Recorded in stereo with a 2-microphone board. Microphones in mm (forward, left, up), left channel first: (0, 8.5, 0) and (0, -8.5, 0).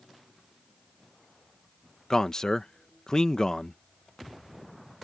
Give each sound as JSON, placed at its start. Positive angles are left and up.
{"t": 2.1, "sound": "a man speaking", "side_deg": 35}